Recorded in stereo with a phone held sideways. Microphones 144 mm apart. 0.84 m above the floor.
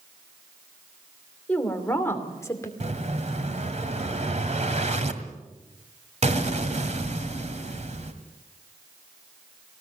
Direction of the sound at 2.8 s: 55° right (ahead or behind).